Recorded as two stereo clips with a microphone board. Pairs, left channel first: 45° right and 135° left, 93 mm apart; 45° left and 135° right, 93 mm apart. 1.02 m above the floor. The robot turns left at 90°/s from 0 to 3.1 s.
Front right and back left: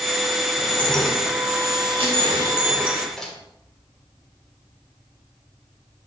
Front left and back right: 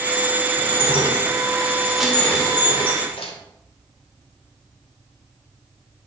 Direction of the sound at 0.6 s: 90° right.